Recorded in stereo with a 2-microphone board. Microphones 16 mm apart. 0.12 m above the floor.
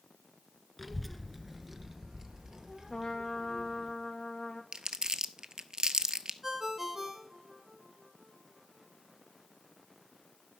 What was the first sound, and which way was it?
A child speaking, 10° left (ahead or behind).